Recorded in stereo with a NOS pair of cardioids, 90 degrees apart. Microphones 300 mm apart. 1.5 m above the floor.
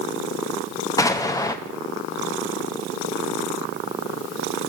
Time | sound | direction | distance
1.0 | an explosion | 10° left | 0.8 m